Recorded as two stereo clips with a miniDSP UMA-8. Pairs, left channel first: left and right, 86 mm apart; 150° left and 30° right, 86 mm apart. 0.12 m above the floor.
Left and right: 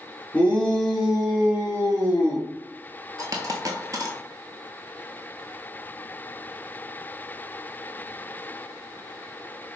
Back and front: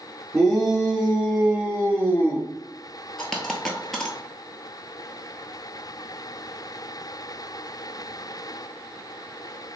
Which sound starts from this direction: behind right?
A dropped coin, at 3.2 s.